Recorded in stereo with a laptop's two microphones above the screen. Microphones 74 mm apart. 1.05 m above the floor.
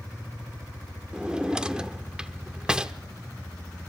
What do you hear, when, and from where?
1.1 s a drawer: 10° right (ahead or behind), 0.8 m